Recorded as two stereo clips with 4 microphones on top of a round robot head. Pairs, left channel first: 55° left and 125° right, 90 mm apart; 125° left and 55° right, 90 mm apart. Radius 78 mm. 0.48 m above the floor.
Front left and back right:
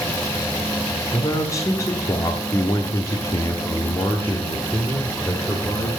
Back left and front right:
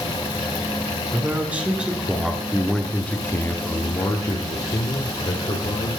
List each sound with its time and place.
1.1 s a man speaking: 10° left, 1.8 m; by 5.9 s 130° left, 2 m